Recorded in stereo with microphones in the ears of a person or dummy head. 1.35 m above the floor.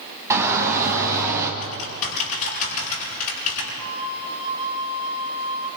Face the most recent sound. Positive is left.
turn(degrees=-25)  # may be behind; listen again after turning